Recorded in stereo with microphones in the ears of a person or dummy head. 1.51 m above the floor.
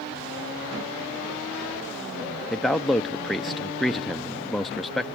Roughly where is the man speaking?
Centre.